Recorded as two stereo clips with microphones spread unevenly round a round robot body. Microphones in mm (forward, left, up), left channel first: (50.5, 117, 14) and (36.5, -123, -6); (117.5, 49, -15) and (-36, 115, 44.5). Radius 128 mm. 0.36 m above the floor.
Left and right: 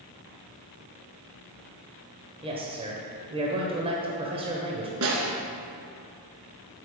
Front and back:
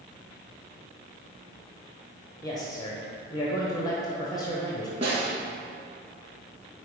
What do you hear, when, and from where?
2.4 s a man speaking: 45° right, 1.1 m
5.0 s a snare drum: 135° right, 1.3 m